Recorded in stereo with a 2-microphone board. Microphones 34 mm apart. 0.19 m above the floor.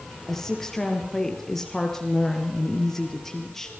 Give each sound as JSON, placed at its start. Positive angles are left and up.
{"t": 0.3, "sound": "a woman speaking", "side_deg": 10, "distance_m": 3.5}